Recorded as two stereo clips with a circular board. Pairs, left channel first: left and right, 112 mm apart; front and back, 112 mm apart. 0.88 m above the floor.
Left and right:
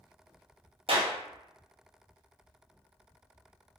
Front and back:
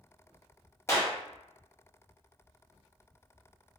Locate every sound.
0.9 s a clap: 65° right, 0.7 m